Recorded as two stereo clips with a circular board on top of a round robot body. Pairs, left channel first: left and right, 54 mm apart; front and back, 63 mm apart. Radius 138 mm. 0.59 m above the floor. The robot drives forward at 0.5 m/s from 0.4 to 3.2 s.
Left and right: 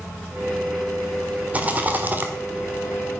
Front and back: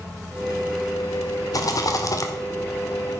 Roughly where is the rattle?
Ahead right.